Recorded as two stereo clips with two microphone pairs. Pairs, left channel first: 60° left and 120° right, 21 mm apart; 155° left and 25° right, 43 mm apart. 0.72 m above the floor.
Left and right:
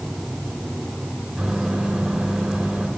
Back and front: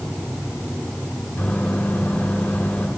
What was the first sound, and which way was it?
A microwave, 155° right.